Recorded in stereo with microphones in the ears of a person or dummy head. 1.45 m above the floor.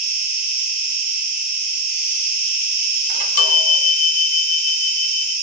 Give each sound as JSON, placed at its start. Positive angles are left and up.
{"t": 0.0, "sound": "an insect", "side_deg": 45, "distance_m": 1.6}
{"t": 3.1, "sound": "a chime", "side_deg": 60, "distance_m": 1.7}